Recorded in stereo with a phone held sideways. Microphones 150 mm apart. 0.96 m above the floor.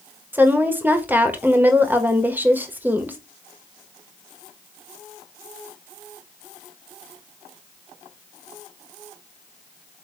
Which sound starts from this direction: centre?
A woman speaking, at 0.3 s.